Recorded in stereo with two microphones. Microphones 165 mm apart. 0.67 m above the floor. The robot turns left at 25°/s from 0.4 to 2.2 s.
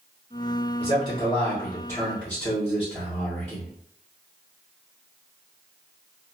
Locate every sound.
0.8 s a man speaking: 45° left, 1.4 m; by 3.7 s 10° left, 1.4 m